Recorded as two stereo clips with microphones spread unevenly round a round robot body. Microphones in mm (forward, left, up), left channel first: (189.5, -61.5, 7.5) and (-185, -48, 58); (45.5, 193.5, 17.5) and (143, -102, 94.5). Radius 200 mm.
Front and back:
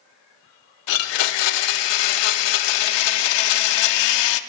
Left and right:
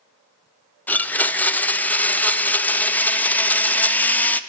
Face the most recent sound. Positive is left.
turn(degrees=20)